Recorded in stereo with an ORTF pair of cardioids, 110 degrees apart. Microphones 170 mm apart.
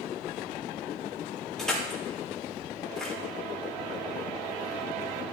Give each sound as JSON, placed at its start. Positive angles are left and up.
{"t": 1.6, "sound": "crushing", "azimuth_deg": 5, "distance_m": 6.5}